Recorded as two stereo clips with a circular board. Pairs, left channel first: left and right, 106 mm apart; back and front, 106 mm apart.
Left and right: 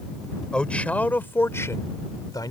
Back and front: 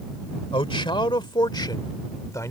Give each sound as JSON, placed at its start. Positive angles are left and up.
{"t": 0.5, "sound": "a man speaking", "azimuth_deg": 170}